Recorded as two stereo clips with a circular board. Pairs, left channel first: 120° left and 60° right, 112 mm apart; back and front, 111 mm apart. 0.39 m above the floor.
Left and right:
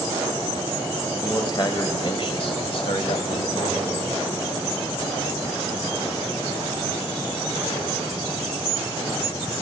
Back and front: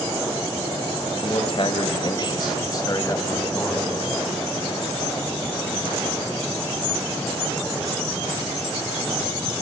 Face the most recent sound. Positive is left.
turn(degrees=110)